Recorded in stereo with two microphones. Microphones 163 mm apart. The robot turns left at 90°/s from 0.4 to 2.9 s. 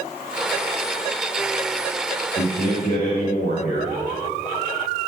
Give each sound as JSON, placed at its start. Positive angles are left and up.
{"t": 2.4, "sound": "a man speaking", "azimuth_deg": 105, "distance_m": 4.0}